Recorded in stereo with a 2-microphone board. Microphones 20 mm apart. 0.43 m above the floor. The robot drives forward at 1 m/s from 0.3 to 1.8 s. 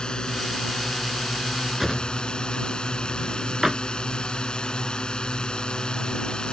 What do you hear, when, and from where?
0.0 s a drone: 40° left (ahead or behind)
1.8 s a drawer: 10° right (ahead or behind)